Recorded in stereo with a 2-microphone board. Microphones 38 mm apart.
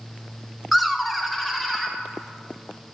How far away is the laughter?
About 0.5 m.